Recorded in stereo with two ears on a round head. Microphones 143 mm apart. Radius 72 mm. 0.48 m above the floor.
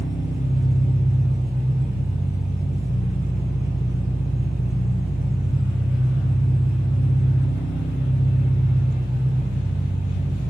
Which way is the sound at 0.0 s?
10° right (ahead or behind).